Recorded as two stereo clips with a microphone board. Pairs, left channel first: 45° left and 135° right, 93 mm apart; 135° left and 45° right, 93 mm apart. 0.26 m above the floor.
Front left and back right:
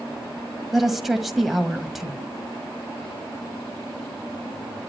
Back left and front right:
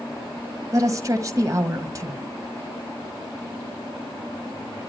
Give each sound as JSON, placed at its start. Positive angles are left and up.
{"t": 0.7, "sound": "a woman speaking", "azimuth_deg": -50, "distance_m": 1.4}